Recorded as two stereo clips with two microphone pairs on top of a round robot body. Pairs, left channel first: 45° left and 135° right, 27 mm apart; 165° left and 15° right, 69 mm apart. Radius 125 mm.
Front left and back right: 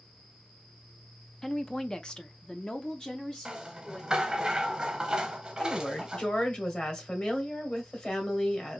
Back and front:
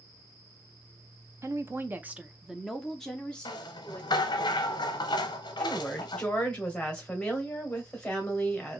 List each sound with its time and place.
1.4 s a woman speaking: 20° right, 0.9 m; by 4.5 s 105° left, 1.5 m
3.5 s a rattle: 150° left, 0.6 m
5.6 s a woman speaking: 90° left, 2 m